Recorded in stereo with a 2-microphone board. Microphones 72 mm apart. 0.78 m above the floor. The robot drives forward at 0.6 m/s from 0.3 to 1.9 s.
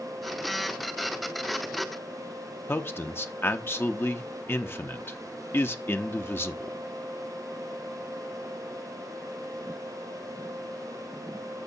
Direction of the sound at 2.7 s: 30° left (ahead or behind).